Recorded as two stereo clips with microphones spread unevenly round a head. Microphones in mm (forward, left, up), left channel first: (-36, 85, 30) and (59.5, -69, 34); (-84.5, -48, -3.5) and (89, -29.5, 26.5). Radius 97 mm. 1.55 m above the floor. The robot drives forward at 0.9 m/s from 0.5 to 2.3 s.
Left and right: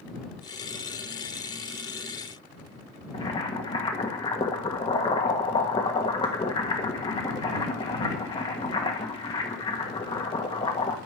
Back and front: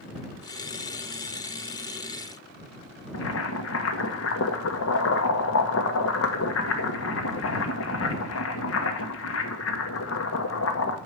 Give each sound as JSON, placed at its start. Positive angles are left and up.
{"t": 3.1, "sound": "boiling", "azimuth_deg": -170, "distance_m": 1.4}